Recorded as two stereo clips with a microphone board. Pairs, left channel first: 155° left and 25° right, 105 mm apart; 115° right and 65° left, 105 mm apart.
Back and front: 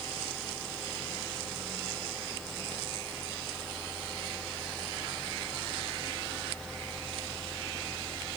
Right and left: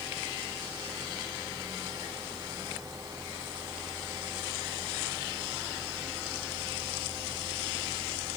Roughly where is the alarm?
No alarm in this recording.